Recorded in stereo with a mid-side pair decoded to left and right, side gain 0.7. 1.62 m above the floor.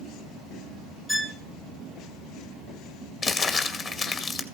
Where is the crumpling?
35° left, 2 m.